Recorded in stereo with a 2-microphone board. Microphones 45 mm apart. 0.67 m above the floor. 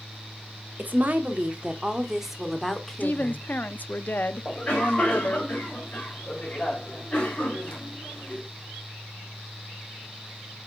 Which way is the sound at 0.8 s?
40° right (ahead or behind).